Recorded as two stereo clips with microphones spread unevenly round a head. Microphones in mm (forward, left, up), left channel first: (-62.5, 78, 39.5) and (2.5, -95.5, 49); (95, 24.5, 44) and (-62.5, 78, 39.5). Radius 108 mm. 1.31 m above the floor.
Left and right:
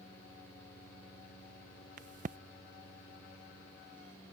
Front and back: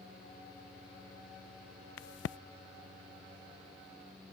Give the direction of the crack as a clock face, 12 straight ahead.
12 o'clock.